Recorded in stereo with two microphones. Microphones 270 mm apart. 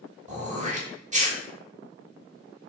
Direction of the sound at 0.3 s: 25° right (ahead or behind).